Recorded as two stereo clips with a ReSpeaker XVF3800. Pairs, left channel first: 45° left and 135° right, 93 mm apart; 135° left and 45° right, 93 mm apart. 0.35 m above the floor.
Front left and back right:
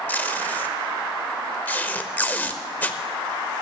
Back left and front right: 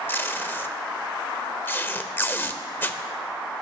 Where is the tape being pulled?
95° left, 0.6 m.